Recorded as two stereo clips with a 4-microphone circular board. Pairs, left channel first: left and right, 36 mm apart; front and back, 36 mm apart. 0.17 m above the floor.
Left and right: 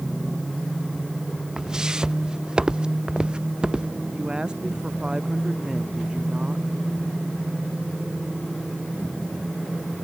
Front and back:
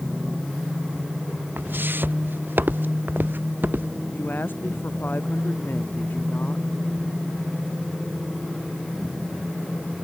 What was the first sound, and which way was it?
Footsteps, 160° right.